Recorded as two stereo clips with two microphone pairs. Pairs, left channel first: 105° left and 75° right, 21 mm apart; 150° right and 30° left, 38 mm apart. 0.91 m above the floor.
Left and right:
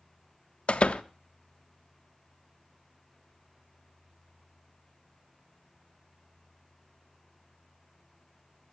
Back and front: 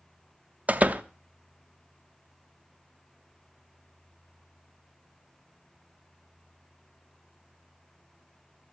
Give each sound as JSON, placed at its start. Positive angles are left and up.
{"t": 0.7, "sound": "a door slam", "azimuth_deg": 75, "distance_m": 0.8}